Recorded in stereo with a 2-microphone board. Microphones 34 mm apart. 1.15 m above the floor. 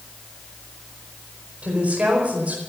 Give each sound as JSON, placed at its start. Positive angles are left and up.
{"t": 1.6, "sound": "a woman speaking", "side_deg": -45, "distance_m": 4.5}